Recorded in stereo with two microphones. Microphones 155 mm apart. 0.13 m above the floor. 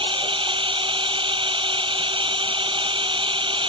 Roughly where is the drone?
Right.